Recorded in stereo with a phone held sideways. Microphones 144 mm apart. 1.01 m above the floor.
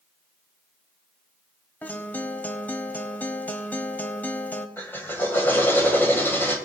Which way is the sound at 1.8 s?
10° left (ahead or behind).